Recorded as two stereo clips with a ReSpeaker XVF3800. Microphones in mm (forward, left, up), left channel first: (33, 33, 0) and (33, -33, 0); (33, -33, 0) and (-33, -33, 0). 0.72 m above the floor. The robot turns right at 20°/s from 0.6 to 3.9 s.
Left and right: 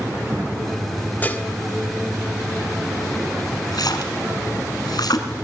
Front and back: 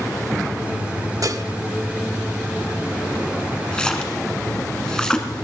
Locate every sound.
1.2 s dishes clattering: 155° left, 1.0 m; by 1.4 s 160° left, 1.0 m
3.7 s a splash: 75° left, 2 m; by 5.3 s 80° left, 2 m